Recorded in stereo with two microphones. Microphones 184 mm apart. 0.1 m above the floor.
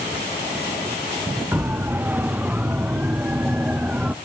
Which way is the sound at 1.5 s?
10° right (ahead or behind).